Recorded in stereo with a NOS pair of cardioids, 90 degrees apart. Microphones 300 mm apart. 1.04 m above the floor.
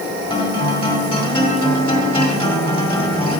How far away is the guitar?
About 1.9 m.